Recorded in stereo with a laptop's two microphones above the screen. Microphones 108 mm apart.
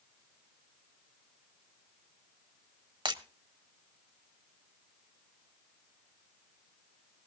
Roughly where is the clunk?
No clunk in this recording.